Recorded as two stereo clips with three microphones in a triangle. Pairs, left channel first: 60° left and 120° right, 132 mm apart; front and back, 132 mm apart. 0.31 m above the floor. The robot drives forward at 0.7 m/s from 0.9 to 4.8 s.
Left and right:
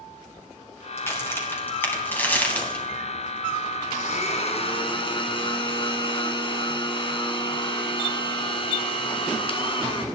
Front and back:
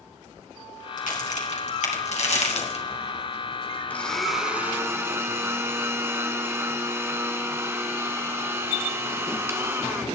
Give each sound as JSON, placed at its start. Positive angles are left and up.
{"t": 1.0, "sound": "a crack", "azimuth_deg": -10, "distance_m": 2.5}
{"t": 3.9, "sound": "a blender", "azimuth_deg": 80, "distance_m": 1.2}